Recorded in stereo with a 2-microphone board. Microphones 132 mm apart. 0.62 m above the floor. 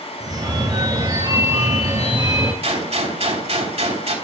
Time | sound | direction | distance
0.2 | a phone ringing | 30° right (ahead or behind) | 2 m
2.6 | a gunshot | 55° right (ahead or behind) | 3 m